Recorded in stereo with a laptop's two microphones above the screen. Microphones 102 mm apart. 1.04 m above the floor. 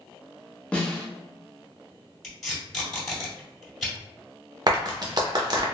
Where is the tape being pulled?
5° left (ahead or behind), 1.9 m.